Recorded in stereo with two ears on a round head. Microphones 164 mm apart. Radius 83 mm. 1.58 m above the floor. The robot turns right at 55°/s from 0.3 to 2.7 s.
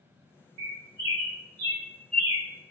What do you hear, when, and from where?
0.6 s a bird: 45° right (ahead or behind), 1.8 m; by 2.5 s 15° right (ahead or behind), 1.8 m